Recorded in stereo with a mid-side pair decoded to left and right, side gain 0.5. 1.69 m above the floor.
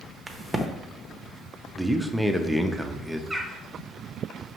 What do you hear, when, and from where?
0.3 s a crack: 25° right, 0.6 m
1.8 s a man speaking: 5° right, 0.5 m
3.3 s a bird: 10° right, 0.9 m